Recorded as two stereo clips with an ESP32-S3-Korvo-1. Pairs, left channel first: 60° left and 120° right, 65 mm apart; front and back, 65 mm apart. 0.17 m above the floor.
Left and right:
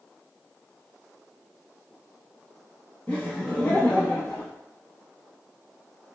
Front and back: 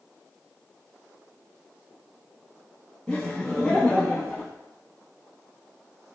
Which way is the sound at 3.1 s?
45° left.